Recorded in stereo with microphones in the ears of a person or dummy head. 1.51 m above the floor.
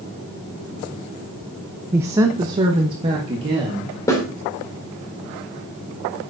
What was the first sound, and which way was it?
A woman speaking, 10° right (ahead or behind).